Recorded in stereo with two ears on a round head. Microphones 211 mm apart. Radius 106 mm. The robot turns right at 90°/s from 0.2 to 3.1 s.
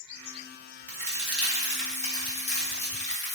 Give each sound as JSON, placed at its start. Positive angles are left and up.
{"t": 0.9, "sound": "a crack", "side_deg": -35, "distance_m": 1.0}